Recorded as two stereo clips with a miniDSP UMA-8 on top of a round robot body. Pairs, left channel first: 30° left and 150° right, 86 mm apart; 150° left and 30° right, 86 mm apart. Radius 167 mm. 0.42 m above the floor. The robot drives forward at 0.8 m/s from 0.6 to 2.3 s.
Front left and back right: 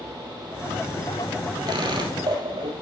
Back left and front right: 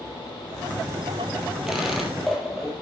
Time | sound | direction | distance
1.7 | a squeak | 115° right | 3 m